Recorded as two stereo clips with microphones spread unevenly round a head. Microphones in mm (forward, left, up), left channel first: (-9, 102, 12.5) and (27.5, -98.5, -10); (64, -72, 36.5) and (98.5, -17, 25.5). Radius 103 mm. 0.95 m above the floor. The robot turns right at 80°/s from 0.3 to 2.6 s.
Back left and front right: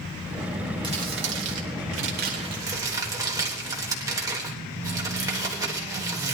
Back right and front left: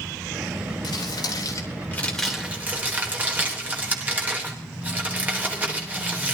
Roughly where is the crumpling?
Behind right.